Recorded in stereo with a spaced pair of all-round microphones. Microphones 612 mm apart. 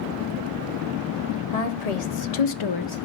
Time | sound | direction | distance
1.5 | a woman speaking | 70° left (ahead or behind) | 1.2 m